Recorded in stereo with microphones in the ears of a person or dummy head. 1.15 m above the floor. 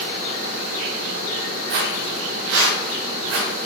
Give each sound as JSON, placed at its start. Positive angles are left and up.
{"t": 1.7, "sound": "footsteps", "side_deg": -60, "distance_m": 2.0}